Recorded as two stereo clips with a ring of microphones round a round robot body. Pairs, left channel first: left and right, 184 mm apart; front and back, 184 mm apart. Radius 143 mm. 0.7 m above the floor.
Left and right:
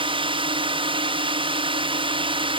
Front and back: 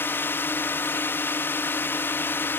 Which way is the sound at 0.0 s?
70° right.